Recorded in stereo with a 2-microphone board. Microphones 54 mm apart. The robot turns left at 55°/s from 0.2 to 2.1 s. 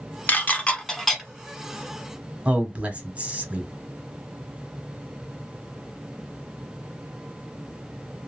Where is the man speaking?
25° right (ahead or behind), 1.1 m.